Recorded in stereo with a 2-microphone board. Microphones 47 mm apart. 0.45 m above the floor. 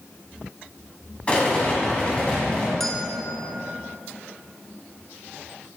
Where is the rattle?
25° left (ahead or behind), 1.9 m.